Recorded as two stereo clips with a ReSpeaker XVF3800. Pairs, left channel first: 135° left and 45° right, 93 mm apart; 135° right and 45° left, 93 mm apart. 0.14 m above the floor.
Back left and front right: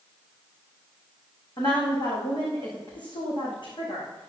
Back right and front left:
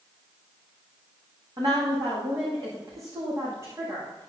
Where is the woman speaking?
95° left, 8 m; by 4.3 s 105° left, 8 m.